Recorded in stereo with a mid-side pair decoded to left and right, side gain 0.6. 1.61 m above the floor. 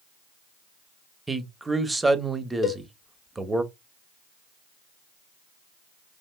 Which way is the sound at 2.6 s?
45° left.